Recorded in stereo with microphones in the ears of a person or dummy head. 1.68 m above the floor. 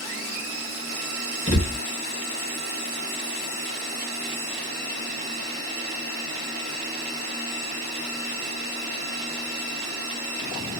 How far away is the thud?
About 1.0 m.